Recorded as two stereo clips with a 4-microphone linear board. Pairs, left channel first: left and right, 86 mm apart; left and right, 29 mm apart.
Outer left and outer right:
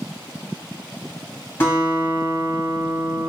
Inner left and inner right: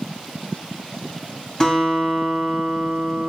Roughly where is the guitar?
Left.